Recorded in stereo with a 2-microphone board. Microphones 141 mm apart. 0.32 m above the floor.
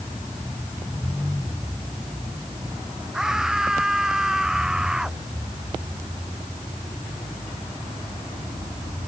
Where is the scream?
5° right (ahead or behind).